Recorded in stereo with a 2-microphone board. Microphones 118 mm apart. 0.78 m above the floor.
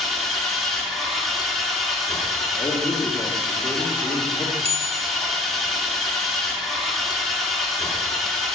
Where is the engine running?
Centre (ahead or behind), 1.2 m.